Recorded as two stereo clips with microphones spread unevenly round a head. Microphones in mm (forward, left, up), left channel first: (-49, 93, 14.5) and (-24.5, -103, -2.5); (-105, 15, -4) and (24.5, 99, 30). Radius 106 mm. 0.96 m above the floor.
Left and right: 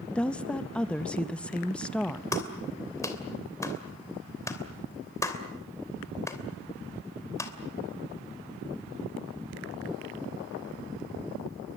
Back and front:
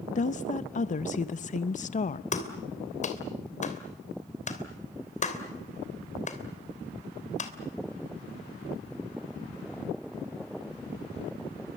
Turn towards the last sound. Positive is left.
turn(degrees=170)